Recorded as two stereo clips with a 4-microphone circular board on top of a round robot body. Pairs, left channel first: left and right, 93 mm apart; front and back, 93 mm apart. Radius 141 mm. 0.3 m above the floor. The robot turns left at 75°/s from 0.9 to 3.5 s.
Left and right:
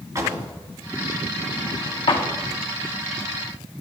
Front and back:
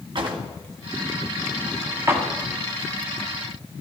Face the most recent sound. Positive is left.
turn(degrees=15)